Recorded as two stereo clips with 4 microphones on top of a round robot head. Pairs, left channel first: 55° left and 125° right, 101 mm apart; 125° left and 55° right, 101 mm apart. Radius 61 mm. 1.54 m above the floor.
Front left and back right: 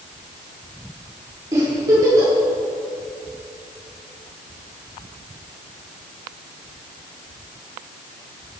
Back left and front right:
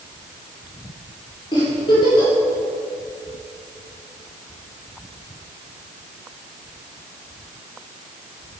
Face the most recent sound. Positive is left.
turn(degrees=175)